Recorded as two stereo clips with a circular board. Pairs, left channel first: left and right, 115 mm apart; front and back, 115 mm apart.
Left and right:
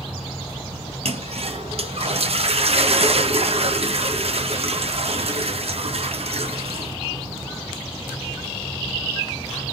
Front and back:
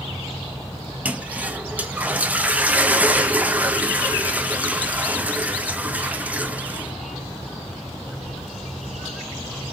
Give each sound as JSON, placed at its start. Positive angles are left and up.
{"t": 1.1, "sound": "a toilet flushing", "azimuth_deg": -105, "distance_m": 0.7}